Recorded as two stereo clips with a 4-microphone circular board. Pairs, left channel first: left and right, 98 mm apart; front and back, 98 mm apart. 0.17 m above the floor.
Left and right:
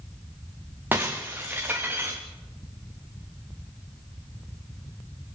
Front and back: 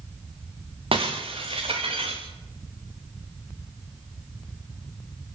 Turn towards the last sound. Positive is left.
turn(degrees=-160)